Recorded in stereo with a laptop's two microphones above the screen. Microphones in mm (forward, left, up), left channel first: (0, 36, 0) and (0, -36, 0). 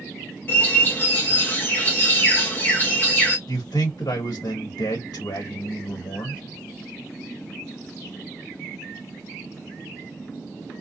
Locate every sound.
0.5 s a bird: 30° left (ahead or behind), 0.7 m
3.5 s a man speaking: 70° left (ahead or behind), 1.0 m